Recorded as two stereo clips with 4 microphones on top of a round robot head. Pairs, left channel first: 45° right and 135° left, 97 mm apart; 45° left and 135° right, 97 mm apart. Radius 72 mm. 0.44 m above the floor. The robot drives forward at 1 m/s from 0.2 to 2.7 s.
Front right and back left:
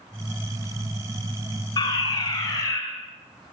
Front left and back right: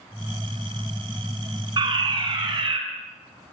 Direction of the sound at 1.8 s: 95° right.